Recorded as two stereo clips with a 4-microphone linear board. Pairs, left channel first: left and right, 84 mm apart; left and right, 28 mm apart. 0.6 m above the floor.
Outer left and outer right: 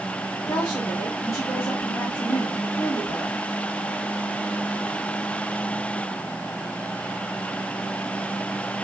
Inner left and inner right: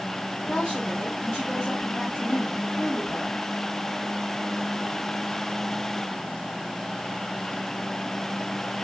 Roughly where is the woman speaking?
Left.